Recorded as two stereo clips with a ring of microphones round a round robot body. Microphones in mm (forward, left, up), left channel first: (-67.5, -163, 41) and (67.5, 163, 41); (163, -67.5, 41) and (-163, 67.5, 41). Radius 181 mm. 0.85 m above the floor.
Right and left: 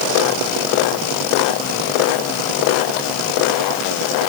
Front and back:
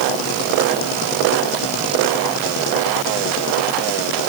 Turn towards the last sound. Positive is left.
No sound to turn to.